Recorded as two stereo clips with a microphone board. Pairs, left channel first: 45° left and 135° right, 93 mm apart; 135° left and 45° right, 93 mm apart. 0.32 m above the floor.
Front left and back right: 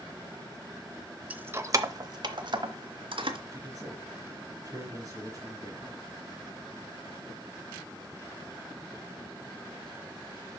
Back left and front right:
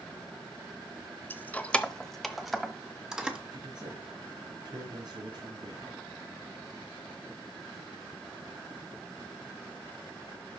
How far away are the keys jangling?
About 0.6 m.